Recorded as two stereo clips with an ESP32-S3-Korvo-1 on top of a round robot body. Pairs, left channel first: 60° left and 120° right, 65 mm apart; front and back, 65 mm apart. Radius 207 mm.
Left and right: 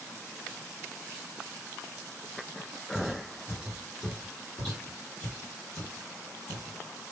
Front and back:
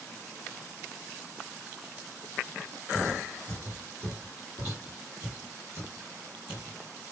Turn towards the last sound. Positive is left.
turn(degrees=75)